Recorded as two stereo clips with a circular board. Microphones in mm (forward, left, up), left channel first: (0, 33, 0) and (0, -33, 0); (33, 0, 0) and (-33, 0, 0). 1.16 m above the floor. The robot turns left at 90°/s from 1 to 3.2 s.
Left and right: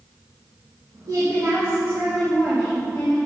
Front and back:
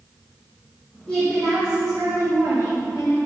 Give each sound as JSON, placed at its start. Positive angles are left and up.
{"t": 1.1, "sound": "a woman speaking", "azimuth_deg": -80, "distance_m": 2.5}